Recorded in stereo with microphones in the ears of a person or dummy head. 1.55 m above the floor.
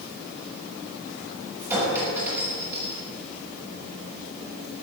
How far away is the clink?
About 6.5 m.